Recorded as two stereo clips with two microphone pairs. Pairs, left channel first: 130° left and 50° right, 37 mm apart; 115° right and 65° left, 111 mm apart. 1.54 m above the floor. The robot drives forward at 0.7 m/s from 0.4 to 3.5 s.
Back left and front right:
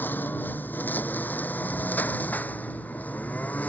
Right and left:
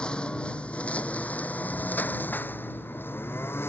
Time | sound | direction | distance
0.0 | a lawn mower | 165° left | ?